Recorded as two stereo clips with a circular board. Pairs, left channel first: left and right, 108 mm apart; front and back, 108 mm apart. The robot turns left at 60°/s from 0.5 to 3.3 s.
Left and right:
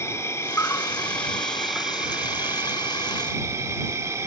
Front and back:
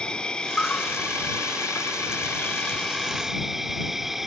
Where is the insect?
70° left; by 4.3 s 95° right.